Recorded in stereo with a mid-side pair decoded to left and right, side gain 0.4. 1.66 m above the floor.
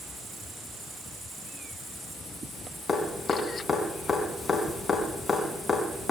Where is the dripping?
35° left, 4.5 m.